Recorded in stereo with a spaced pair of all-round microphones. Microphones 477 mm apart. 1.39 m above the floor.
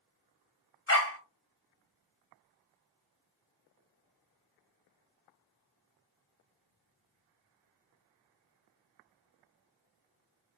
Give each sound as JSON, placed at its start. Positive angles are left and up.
{"t": 0.9, "sound": "a dog barking", "side_deg": 30, "distance_m": 0.8}